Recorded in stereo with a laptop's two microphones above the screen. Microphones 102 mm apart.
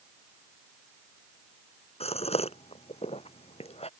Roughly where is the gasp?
Left.